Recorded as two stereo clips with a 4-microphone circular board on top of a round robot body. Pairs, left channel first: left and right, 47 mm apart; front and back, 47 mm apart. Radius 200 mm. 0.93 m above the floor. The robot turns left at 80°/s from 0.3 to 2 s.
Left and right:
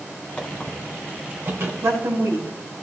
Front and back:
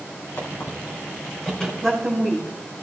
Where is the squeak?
25° left, 2.5 m; by 1.7 s 85° right, 2.5 m.